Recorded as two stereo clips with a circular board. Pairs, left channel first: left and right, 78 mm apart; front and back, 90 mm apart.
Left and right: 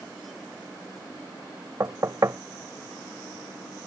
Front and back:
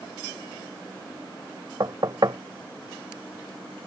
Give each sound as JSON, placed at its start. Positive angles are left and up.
{"t": 1.8, "sound": "knocking", "azimuth_deg": -140}